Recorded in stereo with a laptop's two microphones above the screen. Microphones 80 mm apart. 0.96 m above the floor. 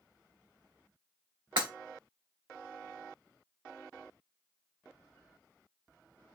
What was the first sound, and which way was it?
Breaking glass, 80° right.